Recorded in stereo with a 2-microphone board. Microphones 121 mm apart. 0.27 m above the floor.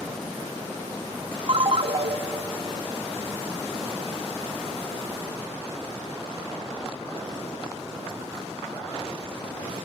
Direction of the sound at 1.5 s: 55° right (ahead or behind).